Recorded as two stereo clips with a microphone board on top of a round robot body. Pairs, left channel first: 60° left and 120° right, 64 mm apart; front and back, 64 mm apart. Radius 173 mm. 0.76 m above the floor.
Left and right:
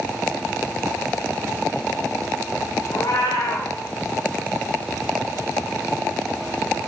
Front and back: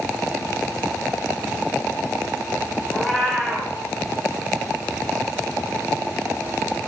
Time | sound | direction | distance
2.9 | a cat meowing | 85° left | 0.6 m